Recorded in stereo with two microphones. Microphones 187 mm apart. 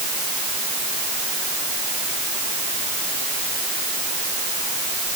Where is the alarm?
No alarm in this recording.